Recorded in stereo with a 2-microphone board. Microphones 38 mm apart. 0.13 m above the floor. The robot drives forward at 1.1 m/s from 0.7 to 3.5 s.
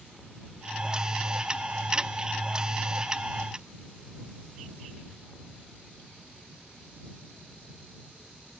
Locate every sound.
Only background noise.